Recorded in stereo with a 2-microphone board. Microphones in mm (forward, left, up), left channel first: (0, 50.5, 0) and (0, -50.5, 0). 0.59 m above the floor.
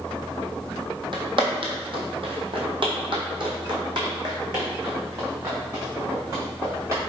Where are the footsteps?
55° right (ahead or behind), 1.2 m; by 7.0 s 30° right (ahead or behind), 3 m.